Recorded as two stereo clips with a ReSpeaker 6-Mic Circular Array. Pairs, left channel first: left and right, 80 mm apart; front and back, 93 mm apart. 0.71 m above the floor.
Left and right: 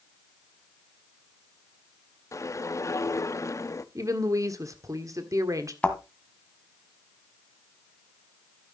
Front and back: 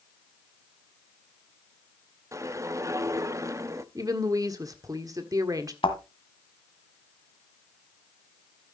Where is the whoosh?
130° left, 0.6 m.